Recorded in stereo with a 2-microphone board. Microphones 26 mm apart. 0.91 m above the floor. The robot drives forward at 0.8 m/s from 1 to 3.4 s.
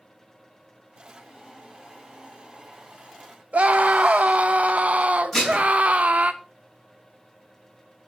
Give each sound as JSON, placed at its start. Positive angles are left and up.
{"t": 3.5, "sound": "a scream", "side_deg": -55, "distance_m": 0.6}
{"t": 5.3, "sound": "dishes clattering", "side_deg": 15, "distance_m": 4.5}